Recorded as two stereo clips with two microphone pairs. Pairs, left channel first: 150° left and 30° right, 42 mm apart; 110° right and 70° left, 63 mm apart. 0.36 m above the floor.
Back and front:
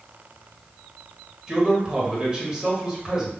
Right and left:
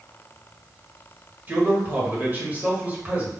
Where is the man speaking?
25° left, 1.3 m.